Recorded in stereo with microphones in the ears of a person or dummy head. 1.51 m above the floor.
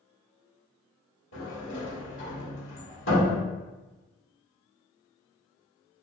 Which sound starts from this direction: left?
A sliding door, at 1.3 s.